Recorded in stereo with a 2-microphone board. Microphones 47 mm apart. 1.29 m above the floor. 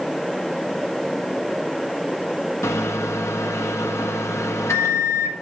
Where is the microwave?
80° left, 1.5 m.